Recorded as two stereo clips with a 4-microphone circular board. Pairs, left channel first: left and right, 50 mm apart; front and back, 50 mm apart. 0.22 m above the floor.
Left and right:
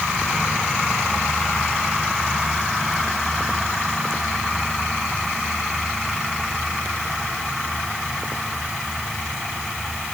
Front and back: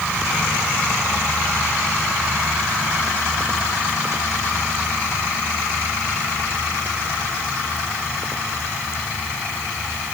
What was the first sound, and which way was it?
Only background noise.